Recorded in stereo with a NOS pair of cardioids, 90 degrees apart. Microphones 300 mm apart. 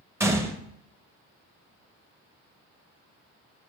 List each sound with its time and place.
0.2 s a gunshot: 10° right, 0.6 m